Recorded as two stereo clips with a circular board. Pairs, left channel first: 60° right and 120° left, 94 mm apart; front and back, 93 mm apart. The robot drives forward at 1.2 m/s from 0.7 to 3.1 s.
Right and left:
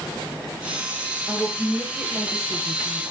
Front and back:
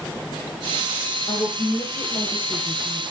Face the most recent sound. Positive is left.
turn(degrees=35)